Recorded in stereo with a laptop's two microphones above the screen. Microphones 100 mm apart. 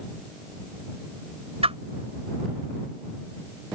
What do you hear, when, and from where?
1.6 s a whoosh: 80° right